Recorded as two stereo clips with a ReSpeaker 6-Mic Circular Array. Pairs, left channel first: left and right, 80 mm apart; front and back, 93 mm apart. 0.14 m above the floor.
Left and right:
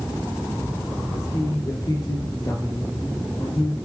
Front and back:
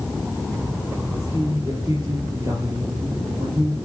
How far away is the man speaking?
About 4.5 m.